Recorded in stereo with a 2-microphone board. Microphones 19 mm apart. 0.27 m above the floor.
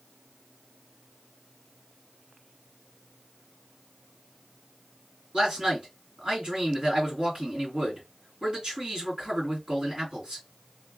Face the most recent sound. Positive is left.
turn(degrees=-55)  # may be behind; listen again after turning